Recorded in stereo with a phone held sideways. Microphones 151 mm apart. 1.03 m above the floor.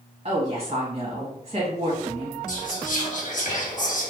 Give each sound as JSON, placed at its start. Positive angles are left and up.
{"t": 0.2, "sound": "a woman speaking", "side_deg": -45, "distance_m": 1.8}
{"t": 2.5, "sound": "whispering", "side_deg": 60, "distance_m": 1.7}